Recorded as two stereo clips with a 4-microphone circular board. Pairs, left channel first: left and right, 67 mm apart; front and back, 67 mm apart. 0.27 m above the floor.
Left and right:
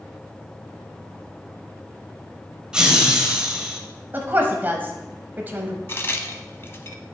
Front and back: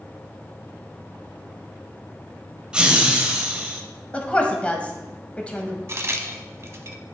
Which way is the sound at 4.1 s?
60° right.